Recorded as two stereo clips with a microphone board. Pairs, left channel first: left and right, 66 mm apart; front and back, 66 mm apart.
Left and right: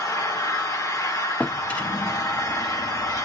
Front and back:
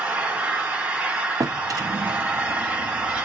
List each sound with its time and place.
0.0 s an engine running: 115° left, 1.0 m
1.4 s a drawer: 160° left, 0.5 m